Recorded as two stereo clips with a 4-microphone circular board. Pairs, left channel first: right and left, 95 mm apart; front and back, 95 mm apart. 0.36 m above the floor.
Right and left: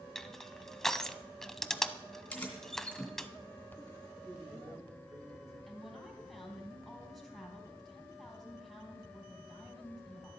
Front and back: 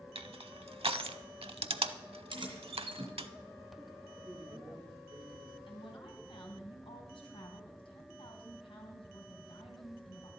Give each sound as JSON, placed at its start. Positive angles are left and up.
{"t": 0.1, "sound": "crushing", "azimuth_deg": -175, "distance_m": 0.6}
{"t": 2.3, "sound": "keys jangling", "azimuth_deg": -165, "distance_m": 2.5}
{"t": 4.2, "sound": "a man speaking", "azimuth_deg": 140, "distance_m": 5.5}
{"t": 5.7, "sound": "a woman speaking", "azimuth_deg": 0, "distance_m": 3.0}